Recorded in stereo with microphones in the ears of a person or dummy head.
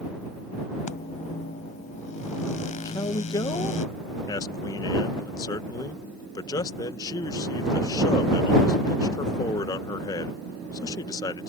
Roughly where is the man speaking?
Centre.